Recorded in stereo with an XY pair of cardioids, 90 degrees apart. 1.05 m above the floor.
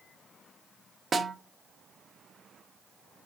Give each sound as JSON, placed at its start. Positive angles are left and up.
{"t": 1.1, "sound": "a snare drum", "azimuth_deg": -35, "distance_m": 0.9}